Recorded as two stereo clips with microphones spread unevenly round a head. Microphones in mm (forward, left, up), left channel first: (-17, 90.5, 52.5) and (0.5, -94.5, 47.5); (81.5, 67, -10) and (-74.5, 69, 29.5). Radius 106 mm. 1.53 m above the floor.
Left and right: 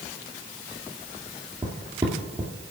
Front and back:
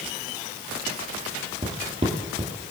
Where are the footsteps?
150° right, 2 m.